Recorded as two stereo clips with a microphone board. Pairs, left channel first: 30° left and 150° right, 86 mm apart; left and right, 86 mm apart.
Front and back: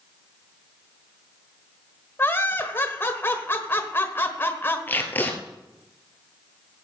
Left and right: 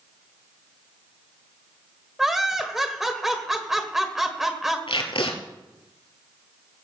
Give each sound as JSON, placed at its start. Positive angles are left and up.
{"t": 2.2, "sound": "laughter", "azimuth_deg": -10, "distance_m": 1.4}
{"t": 4.9, "sound": "tape being pulled", "azimuth_deg": 95, "distance_m": 1.7}